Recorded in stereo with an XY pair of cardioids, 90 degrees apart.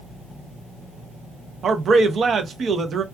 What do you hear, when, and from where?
1.6 s a man speaking: 60° right, 0.7 m